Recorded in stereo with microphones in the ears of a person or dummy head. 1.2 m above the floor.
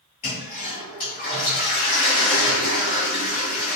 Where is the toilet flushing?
35° left (ahead or behind), 1.1 m.